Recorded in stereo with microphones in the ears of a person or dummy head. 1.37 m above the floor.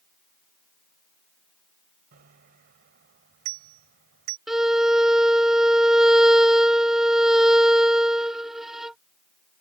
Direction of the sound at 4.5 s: 5° right (ahead or behind).